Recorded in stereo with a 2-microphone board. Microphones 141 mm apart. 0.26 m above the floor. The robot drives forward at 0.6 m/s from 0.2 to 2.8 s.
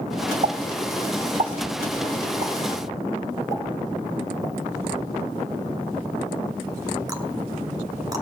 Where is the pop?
55° right (ahead or behind), 0.7 m; by 8.2 s 25° right (ahead or behind), 1.3 m.